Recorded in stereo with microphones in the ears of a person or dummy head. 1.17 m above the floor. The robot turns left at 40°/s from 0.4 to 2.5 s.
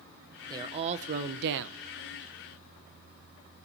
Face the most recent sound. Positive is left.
turn(degrees=-100)